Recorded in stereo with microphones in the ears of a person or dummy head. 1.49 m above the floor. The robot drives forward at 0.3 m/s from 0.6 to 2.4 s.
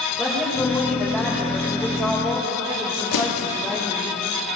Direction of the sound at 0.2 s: 5° left (ahead or behind).